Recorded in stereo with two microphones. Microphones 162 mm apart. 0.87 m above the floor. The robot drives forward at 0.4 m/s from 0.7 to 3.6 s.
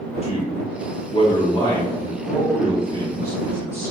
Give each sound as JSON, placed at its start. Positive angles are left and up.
{"t": 0.2, "sound": "a man speaking", "side_deg": 40, "distance_m": 0.6}